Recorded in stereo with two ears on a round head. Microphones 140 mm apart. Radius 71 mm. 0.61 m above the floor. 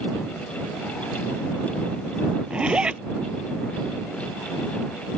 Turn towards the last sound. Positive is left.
turn(degrees=-5)  # may be behind; listen again after turning